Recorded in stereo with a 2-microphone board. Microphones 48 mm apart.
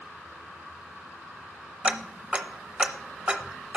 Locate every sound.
1.8 s ticking: 25° right (ahead or behind), 0.6 m